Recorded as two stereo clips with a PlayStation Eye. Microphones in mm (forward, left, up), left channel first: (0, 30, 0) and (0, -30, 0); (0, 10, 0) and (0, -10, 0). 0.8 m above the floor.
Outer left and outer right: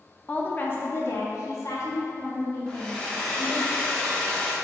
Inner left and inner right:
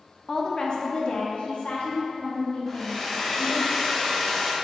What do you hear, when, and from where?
0.3 s a woman speaking: 20° left (ahead or behind), 0.6 m; by 3.7 s 75° left (ahead or behind), 2 m
2.7 s a hair dryer: 15° left (ahead or behind), 0.7 m